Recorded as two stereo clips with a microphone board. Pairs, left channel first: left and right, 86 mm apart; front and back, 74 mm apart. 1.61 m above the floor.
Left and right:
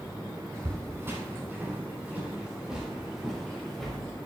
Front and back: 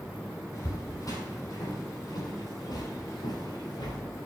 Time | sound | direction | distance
0.5 | footsteps | 40° right | 4 m